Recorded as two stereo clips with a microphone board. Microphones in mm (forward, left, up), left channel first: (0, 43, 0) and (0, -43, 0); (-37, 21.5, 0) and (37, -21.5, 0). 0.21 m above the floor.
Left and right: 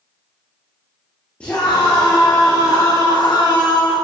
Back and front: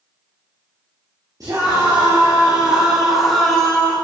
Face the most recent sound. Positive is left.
turn(degrees=80)